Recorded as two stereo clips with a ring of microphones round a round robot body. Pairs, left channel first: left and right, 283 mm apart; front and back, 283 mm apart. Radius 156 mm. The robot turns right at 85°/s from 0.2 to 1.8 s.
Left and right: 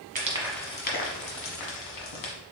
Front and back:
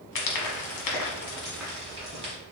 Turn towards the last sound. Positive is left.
turn(degrees=110)